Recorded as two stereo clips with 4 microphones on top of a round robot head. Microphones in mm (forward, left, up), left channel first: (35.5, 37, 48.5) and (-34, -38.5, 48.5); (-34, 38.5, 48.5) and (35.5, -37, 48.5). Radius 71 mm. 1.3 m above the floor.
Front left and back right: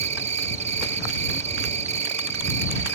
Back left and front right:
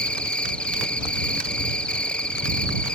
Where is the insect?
145° right.